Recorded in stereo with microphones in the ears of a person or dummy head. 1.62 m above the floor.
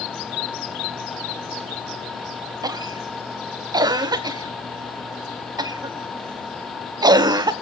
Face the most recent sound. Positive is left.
turn(degrees=-20)  # may be behind; listen again after turning